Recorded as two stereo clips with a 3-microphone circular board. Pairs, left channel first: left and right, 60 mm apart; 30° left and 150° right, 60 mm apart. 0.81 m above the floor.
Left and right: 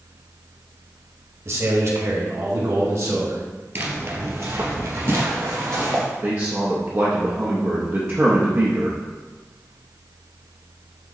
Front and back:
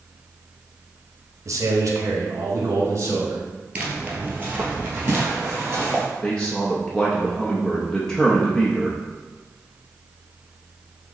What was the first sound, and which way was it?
A man speaking, 125° right.